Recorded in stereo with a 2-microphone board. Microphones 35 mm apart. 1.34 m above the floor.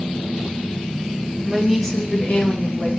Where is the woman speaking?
10° right (ahead or behind), 1.0 m; by 2.9 s 50° left (ahead or behind), 1.6 m.